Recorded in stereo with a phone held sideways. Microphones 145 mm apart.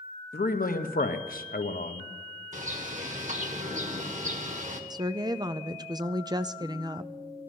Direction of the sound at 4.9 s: 30° right (ahead or behind).